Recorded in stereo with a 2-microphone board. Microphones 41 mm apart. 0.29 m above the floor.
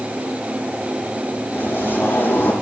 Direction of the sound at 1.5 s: 65° left (ahead or behind).